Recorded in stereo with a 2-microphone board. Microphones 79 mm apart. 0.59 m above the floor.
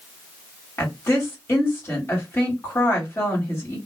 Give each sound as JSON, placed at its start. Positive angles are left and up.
{"t": 0.8, "sound": "a woman speaking", "side_deg": 30, "distance_m": 1.7}